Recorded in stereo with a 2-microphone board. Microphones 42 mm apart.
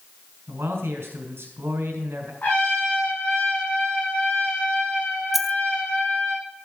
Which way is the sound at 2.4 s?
45° left (ahead or behind).